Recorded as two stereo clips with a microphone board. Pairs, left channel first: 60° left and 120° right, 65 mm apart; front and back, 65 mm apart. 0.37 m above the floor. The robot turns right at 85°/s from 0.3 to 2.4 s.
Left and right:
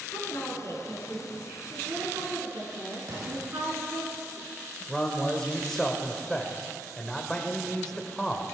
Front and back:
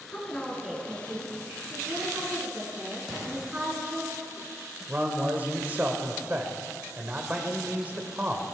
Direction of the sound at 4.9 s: 135° left.